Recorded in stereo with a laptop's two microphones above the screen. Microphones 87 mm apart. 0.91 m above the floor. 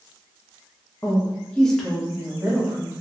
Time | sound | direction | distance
1.0 | a woman speaking | 35° left (ahead or behind) | 0.5 m